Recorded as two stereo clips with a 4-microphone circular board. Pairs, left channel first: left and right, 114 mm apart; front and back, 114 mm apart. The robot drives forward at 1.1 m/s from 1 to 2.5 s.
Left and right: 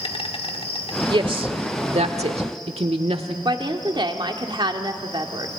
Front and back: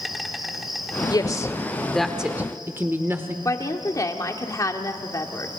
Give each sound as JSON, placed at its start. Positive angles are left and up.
{"t": 0.0, "sound": "an insect", "azimuth_deg": 90, "distance_m": 1.8}
{"t": 1.1, "sound": "a woman speaking", "azimuth_deg": -50, "distance_m": 1.7}
{"t": 3.5, "sound": "a woman speaking", "azimuth_deg": -55, "distance_m": 1.8}